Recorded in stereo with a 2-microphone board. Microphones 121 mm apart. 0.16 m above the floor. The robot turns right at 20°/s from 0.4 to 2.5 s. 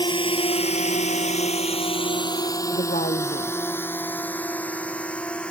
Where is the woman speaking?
80° left.